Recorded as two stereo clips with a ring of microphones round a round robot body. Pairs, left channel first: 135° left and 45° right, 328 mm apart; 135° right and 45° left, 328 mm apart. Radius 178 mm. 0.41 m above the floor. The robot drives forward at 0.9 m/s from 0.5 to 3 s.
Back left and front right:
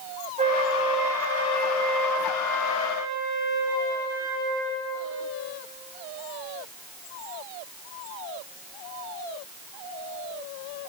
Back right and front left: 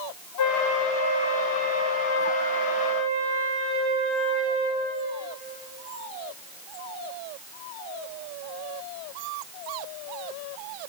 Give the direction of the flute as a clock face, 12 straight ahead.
4 o'clock.